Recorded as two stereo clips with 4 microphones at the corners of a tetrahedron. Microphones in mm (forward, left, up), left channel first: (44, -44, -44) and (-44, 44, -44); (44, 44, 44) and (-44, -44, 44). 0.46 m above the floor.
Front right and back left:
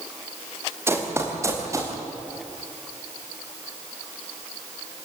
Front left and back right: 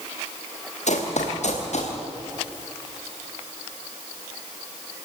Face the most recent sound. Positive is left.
turn(degrees=70)